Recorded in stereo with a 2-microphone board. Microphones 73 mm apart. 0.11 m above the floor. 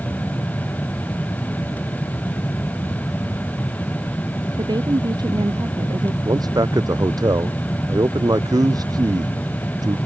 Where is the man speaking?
65° right (ahead or behind).